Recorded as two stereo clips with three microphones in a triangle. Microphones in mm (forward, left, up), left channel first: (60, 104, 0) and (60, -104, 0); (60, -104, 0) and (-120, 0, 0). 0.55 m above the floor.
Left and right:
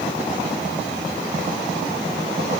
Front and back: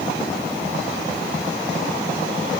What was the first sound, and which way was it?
Only background noise.